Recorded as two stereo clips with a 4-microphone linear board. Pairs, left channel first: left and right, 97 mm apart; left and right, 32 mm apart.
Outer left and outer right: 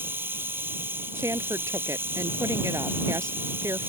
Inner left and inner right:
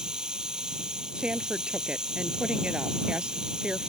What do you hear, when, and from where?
0.0 s running water: 20° right (ahead or behind)
1.1 s a woman speaking: 30° right (ahead or behind)